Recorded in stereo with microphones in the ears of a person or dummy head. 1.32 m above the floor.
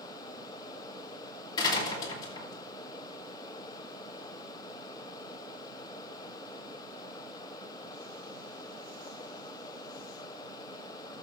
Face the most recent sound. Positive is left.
turn(degrees=25)  # may be behind; listen again after turning